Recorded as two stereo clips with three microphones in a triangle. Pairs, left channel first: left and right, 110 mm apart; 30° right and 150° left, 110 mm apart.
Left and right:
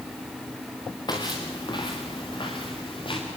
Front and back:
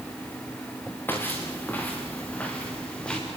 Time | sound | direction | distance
1.1 | footsteps | 40° left | 5.5 m